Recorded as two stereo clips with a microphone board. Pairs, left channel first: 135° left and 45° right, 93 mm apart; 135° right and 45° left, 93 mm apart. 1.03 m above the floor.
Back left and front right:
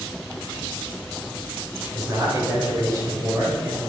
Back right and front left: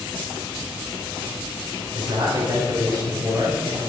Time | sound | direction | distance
1.9 | a man speaking | 10° left | 5 m